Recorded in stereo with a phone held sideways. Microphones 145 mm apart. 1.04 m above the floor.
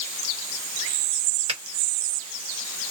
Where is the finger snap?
35° right (ahead or behind), 1.3 m.